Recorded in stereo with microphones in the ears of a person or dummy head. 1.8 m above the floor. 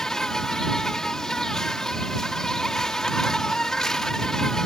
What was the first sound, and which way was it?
An insect, 5° left (ahead or behind).